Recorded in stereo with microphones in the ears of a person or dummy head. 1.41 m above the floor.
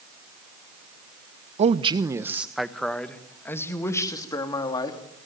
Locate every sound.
1.6 s a man speaking: 40° right (ahead or behind), 1.0 m; by 5.0 s 25° left (ahead or behind), 3 m